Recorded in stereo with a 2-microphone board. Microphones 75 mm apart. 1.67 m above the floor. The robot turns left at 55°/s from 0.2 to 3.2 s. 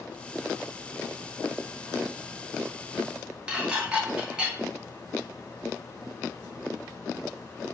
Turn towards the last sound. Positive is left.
turn(degrees=-15)  # may be behind; listen again after turning